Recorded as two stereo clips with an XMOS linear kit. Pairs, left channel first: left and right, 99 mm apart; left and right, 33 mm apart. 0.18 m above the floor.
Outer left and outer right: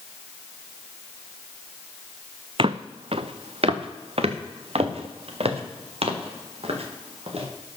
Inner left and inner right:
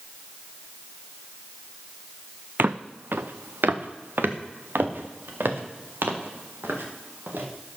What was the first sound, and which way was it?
Footsteps, 60° right (ahead or behind).